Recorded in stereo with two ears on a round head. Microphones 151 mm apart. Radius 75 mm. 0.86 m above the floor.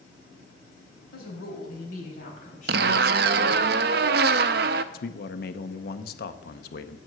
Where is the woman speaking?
60° left (ahead or behind), 4 m; by 3.7 s 40° left (ahead or behind), 5 m.